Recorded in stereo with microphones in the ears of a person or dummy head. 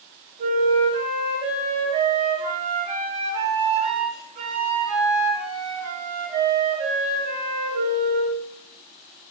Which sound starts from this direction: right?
A flute, at 0.4 s.